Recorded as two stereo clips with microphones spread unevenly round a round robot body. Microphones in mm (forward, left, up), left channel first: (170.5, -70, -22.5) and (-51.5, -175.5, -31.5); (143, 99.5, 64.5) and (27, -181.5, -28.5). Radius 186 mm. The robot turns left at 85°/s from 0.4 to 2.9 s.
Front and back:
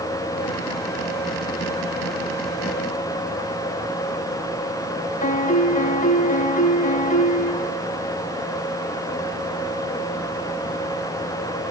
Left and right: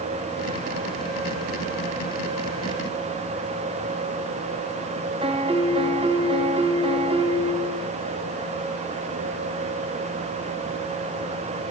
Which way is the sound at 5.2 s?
40° right.